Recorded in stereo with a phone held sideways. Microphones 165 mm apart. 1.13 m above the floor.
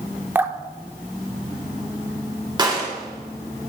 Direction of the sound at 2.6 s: 25° right (ahead or behind).